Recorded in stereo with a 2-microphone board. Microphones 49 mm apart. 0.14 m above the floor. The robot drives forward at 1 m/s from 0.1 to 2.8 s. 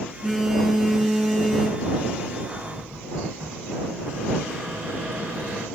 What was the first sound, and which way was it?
A phone buzzing, 10° right (ahead or behind).